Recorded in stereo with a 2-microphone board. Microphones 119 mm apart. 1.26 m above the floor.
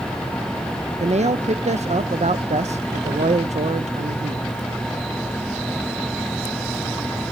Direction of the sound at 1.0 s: 70° right (ahead or behind).